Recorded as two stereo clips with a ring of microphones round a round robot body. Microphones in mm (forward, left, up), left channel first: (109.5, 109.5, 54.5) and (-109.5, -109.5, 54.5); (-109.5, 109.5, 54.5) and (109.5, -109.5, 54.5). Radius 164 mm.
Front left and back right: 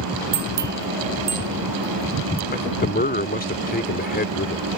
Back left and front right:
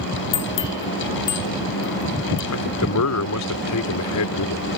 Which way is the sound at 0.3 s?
165° left.